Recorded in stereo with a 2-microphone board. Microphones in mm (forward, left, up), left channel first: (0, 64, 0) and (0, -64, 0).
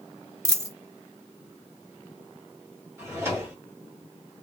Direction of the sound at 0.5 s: 20° right (ahead or behind).